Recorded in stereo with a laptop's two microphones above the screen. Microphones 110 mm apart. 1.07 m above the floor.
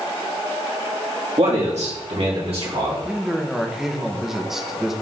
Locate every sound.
1.4 s a man speaking: 75° right (ahead or behind), 2 m; by 3.0 s 60° right (ahead or behind), 3.5 m
3.0 s a man speaking: 5° right (ahead or behind), 0.8 m